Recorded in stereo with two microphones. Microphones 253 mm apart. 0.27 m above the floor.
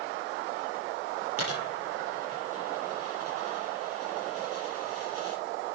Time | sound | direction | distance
1.4 | a dropped coin | 65° right (ahead or behind) | 7 m